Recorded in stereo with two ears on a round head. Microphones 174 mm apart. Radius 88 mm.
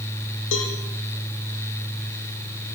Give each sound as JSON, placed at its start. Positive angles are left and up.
{"t": 0.5, "sound": "a cowbell", "side_deg": 70, "distance_m": 4.5}